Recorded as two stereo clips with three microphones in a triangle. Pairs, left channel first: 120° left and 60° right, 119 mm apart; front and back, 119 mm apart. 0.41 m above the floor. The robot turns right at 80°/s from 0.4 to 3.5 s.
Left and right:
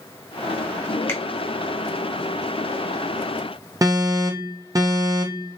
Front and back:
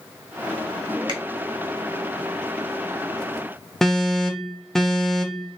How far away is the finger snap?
About 0.8 m.